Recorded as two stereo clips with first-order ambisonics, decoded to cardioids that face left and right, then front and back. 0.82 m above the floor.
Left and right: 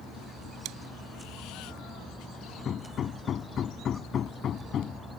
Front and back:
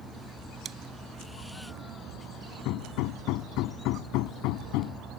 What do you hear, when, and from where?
0.7 s chewing: 120° right
2.6 s hammering: 30° left